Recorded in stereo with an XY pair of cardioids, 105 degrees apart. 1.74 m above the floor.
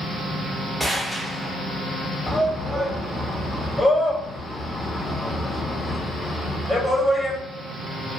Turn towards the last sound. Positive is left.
turn(degrees=5)